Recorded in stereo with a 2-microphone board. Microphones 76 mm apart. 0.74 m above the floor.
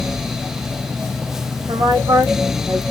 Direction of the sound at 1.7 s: 70° right (ahead or behind).